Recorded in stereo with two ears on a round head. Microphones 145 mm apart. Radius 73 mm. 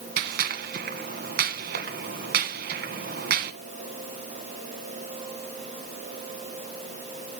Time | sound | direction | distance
0.2 | a gunshot | 70° right (ahead or behind) | 2.0 m